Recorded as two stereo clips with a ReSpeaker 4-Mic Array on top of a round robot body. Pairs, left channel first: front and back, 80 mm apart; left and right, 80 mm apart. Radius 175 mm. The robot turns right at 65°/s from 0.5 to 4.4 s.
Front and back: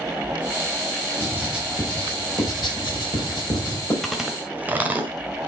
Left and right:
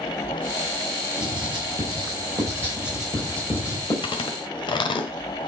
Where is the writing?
125° right, 5 m; by 3.9 s 55° left, 5 m.